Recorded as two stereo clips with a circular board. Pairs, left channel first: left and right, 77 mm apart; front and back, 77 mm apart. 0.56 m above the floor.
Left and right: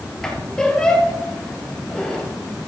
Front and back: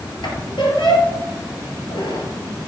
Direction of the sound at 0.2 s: 5° left.